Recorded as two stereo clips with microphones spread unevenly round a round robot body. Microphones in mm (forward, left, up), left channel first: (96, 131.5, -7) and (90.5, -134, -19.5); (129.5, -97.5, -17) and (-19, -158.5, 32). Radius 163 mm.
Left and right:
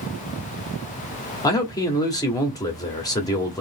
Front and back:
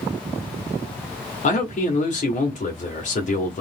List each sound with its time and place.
1.4 s a man speaking: 10° left, 1.2 m